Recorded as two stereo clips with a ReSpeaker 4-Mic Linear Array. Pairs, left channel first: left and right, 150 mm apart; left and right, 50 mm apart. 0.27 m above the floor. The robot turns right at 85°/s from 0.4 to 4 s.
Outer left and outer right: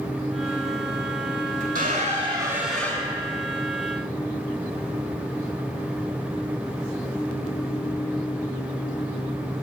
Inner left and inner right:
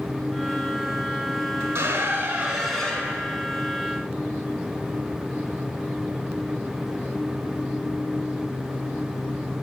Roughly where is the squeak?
Right.